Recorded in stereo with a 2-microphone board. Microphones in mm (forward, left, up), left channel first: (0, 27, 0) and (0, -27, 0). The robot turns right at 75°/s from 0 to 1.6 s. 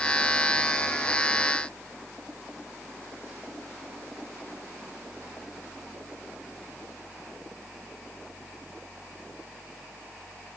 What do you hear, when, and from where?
Only background noise.